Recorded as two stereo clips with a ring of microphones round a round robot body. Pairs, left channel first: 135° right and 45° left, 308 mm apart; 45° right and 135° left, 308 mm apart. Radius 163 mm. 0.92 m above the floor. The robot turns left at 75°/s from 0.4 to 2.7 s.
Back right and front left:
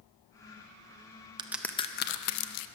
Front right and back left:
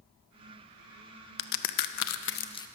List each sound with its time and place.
1.4 s a crack: 30° right, 0.6 m; by 2.7 s 125° right, 0.6 m